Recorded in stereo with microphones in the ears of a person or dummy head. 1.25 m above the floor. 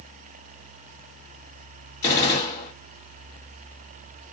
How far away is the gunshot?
About 2 m.